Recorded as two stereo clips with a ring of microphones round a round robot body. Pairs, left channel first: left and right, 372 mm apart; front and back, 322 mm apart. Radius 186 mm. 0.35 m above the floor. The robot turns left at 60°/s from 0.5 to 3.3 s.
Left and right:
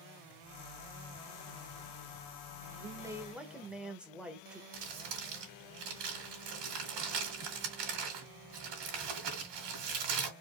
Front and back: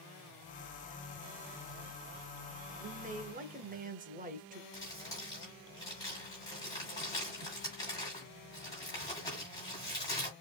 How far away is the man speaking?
About 0.9 m.